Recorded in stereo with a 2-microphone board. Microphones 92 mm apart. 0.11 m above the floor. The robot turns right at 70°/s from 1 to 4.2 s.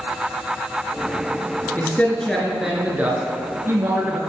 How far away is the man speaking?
About 1.2 m.